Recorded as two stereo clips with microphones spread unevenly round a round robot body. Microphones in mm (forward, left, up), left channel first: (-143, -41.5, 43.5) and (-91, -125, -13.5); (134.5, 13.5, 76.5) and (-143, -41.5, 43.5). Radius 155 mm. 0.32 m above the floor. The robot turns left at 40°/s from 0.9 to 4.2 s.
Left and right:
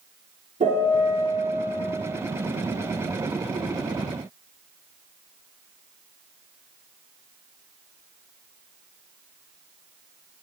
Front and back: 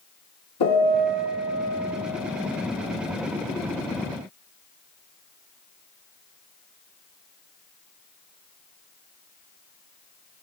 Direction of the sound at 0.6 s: 10° right.